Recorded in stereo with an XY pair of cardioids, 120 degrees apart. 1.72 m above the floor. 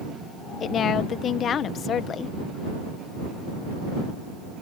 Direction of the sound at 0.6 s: 50° left.